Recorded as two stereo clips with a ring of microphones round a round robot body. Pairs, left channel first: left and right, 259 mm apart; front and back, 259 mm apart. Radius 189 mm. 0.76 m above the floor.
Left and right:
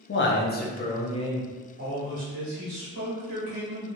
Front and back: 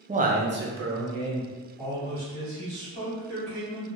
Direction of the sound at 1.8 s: 105° right.